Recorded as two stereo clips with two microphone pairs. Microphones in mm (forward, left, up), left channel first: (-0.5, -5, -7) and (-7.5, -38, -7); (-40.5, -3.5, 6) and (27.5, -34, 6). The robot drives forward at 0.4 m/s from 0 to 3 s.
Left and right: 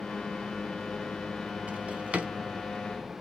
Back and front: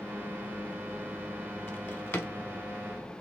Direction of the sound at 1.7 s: 145° right.